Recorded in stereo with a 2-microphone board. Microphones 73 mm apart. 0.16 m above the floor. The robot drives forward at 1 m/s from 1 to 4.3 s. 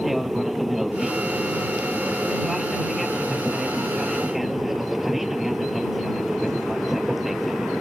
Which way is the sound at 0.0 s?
Centre (ahead or behind).